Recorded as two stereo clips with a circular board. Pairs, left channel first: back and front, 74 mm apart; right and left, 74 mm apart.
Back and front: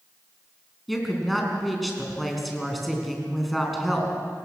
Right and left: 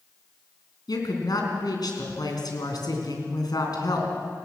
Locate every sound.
0.9 s a woman speaking: 90° right, 4 m